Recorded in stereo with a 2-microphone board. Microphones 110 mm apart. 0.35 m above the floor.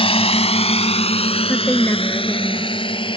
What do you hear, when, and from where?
0.0 s a drone: 60° left (ahead or behind); by 3.2 s 50° left (ahead or behind)
1.5 s a woman speaking: 20° left (ahead or behind)